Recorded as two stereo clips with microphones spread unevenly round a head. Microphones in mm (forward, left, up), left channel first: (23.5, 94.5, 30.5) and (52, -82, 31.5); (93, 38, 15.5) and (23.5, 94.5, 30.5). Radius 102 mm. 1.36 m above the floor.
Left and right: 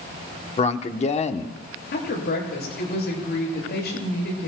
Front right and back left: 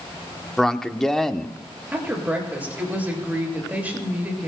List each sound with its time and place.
0.6 s a man speaking: 45° left, 1.0 m
1.9 s a woman speaking: 70° left, 7 m